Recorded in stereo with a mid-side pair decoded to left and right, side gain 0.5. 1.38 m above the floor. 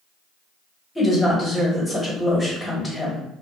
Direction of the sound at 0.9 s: 20° left.